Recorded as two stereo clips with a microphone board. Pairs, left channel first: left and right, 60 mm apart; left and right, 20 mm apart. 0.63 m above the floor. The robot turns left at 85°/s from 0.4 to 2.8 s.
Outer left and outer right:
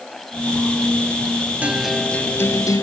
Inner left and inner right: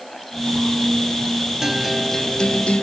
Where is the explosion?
No explosion in this recording.